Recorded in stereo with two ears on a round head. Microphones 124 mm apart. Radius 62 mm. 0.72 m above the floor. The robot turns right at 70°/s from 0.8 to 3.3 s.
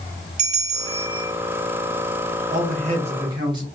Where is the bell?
70° right, 0.9 m; by 1.3 s 35° right, 0.9 m.